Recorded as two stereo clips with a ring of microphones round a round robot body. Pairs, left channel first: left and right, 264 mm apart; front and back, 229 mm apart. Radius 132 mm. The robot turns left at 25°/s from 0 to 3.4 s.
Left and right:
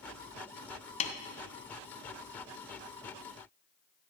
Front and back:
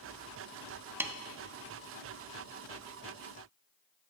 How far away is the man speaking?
I don't hear a man speaking.